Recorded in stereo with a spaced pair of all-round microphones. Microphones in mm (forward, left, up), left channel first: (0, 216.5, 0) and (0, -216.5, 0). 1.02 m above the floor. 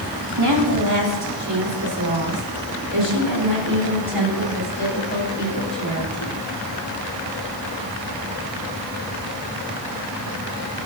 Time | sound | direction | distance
0.4 | a woman speaking | 60° right (ahead or behind) | 2.5 m